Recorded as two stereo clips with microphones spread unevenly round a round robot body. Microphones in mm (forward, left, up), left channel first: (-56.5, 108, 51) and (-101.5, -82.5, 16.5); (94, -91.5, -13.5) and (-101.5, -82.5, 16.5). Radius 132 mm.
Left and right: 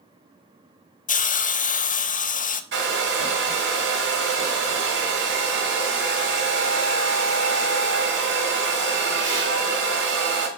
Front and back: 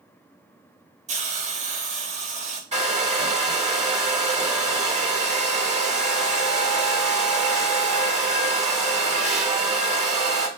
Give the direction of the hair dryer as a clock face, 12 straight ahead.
4 o'clock.